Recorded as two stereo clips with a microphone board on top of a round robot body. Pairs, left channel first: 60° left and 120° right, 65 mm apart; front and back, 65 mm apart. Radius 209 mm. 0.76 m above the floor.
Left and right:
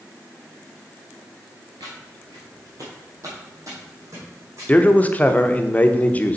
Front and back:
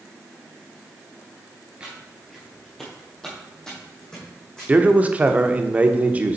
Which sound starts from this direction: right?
Footsteps, at 1.8 s.